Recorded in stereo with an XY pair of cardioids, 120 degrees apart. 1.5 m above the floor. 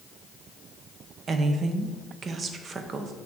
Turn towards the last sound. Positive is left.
turn(degrees=-40)